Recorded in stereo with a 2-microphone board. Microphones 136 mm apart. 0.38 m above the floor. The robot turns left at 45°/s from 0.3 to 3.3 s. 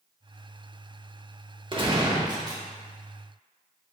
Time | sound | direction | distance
1.7 | a gunshot | 95° right | 0.7 m